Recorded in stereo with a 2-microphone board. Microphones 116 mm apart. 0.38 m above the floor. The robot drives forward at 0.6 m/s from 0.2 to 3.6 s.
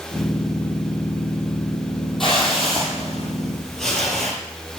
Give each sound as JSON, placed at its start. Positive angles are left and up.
{"t": 2.2, "sound": "a whoosh", "side_deg": 0, "distance_m": 3.0}